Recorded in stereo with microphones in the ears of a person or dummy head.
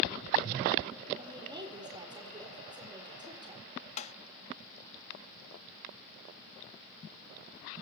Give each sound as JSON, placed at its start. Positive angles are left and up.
{"t": 1.2, "sound": "a woman speaking", "side_deg": -20, "distance_m": 4.0}
{"t": 4.0, "sound": "tapping", "side_deg": 35, "distance_m": 0.5}